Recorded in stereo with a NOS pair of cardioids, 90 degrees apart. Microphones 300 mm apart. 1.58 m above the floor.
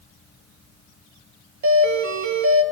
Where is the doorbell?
70° right, 3 m.